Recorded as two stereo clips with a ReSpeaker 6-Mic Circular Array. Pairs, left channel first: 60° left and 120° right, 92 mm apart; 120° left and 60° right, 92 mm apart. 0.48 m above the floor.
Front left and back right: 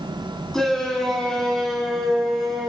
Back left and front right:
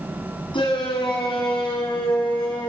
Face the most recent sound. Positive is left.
turn(degrees=150)